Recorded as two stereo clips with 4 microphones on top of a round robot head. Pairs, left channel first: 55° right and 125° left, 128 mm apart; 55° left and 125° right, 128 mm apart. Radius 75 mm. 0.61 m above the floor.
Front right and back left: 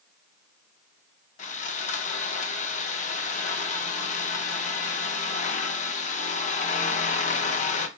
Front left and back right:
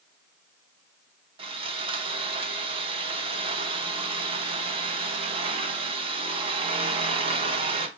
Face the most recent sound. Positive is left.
turn(degrees=-80)